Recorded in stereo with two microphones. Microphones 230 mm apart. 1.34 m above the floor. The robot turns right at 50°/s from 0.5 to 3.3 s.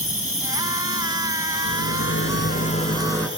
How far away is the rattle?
About 3 m.